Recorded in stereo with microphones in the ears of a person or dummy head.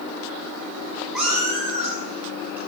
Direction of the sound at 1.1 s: 5° left (ahead or behind).